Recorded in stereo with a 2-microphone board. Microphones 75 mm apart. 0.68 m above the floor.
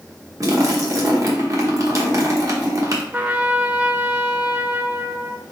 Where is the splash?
45° right (ahead or behind), 1.0 m.